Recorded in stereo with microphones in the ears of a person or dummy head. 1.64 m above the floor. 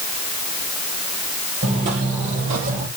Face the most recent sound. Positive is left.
turn(degrees=-45)  # may be behind; listen again after turning